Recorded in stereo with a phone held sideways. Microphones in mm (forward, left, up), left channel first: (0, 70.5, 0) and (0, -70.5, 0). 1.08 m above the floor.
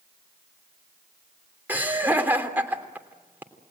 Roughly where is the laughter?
Centre.